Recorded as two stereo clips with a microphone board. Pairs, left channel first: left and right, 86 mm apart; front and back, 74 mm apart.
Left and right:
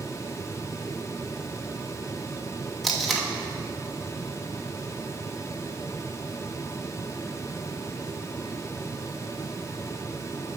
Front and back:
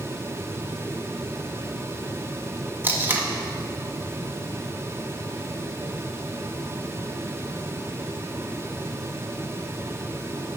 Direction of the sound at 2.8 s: Straight behind.